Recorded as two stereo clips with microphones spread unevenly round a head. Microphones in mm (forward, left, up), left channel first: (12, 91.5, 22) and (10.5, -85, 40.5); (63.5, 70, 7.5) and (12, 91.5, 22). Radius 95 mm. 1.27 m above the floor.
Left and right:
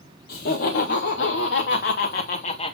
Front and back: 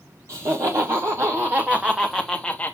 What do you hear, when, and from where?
0.3 s laughter: 120° left, 1.7 m; by 2.8 s 35° left, 1.0 m